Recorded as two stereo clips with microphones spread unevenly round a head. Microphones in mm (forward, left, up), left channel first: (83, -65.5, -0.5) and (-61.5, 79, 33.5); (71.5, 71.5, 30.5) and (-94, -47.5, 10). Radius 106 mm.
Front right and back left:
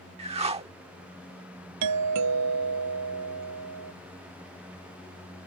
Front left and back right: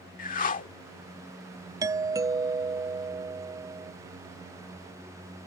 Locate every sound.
0.2 s a whoosh: 80° left
1.8 s a doorbell: 140° left